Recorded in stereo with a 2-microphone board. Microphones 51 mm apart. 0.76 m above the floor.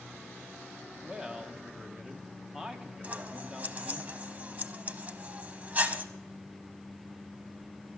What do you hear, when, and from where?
1.0 s a man speaking: 15° right (ahead or behind), 1.3 m
3.0 s scissors: 35° right (ahead or behind), 0.8 m